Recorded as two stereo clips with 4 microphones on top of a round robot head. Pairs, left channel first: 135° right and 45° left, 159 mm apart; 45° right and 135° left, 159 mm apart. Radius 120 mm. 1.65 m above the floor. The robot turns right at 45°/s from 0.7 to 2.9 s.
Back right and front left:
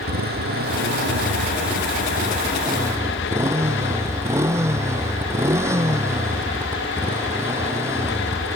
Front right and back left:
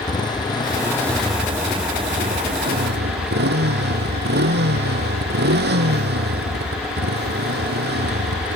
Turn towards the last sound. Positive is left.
turn(degrees=120)